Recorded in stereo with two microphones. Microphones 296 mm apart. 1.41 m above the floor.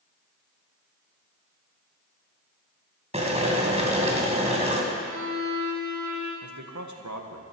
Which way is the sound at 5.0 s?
75° right (ahead or behind).